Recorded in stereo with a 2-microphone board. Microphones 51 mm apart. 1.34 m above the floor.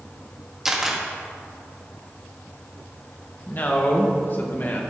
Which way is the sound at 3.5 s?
40° left (ahead or behind).